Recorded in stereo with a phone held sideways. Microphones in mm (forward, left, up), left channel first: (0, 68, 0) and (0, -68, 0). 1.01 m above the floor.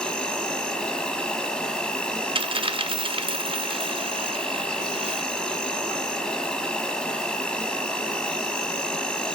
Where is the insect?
5° left (ahead or behind), 1.2 m.